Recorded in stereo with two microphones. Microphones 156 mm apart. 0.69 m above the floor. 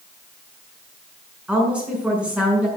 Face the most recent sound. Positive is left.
turn(degrees=-5)  # may be behind; listen again after turning